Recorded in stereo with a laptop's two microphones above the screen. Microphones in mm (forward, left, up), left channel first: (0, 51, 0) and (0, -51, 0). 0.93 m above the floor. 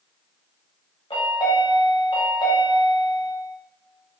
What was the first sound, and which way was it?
A chime, 60° left (ahead or behind).